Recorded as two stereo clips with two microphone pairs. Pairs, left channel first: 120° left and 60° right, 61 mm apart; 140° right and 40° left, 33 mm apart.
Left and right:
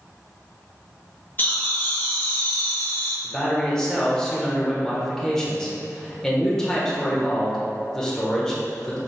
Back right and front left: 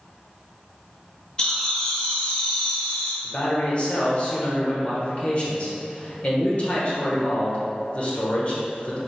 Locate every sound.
1.4 s laughter: 165° left, 1.3 m
3.2 s a man speaking: 165° right, 1.1 m